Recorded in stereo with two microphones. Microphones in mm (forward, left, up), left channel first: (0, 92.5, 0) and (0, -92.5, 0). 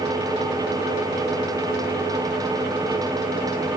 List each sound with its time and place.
Only background noise.